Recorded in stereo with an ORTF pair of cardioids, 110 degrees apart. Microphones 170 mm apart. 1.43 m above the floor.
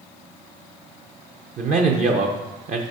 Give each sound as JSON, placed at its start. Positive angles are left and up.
{"t": 1.6, "sound": "a man speaking", "azimuth_deg": -50, "distance_m": 0.7}